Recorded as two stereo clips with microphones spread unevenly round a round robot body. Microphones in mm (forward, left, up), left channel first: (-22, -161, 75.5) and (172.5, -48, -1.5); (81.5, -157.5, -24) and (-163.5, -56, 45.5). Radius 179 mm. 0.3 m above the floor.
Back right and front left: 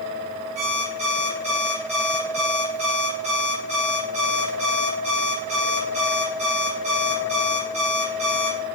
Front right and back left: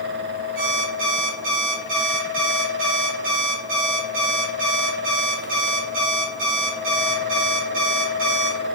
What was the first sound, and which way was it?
An alarm clock, 95° left.